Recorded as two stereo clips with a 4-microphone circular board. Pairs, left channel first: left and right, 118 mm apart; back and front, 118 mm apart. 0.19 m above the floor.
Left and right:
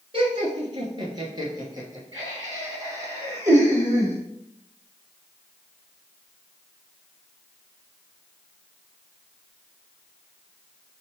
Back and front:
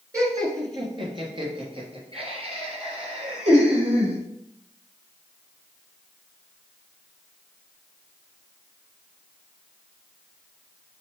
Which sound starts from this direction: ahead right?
Laughter, at 0.1 s.